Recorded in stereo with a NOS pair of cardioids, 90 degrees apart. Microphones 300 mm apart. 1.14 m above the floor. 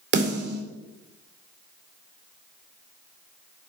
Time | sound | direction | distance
0.1 | a snare drum | 35° right | 2.5 m